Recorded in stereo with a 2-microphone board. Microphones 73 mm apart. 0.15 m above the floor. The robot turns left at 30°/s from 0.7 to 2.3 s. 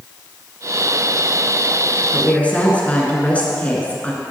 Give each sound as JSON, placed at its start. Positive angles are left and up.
{"t": 2.1, "sound": "a woman speaking", "side_deg": 15, "distance_m": 1.7}